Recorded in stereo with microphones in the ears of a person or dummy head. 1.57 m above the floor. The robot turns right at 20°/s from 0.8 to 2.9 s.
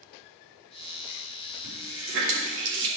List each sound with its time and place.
1.6 s a running tap: 75° right (ahead or behind), 2 m; by 2.9 s 60° right (ahead or behind), 2 m